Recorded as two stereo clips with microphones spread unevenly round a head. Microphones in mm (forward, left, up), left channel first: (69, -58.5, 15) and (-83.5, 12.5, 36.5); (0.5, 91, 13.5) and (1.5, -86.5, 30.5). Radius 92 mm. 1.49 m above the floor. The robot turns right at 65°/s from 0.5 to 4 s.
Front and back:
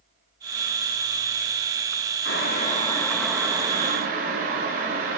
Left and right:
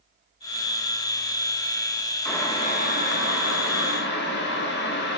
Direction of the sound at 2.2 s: 5° left.